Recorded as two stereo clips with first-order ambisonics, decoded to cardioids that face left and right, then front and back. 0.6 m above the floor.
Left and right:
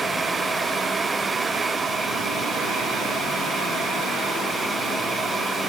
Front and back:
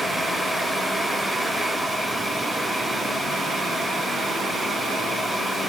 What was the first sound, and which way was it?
Only background noise.